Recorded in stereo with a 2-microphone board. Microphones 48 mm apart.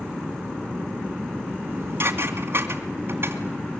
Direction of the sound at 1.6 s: 50° right (ahead or behind).